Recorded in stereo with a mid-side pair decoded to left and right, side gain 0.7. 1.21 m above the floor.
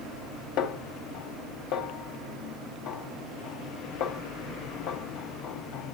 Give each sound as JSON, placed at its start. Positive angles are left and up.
{"t": 0.6, "sound": "a snare drum", "azimuth_deg": 65, "distance_m": 2.0}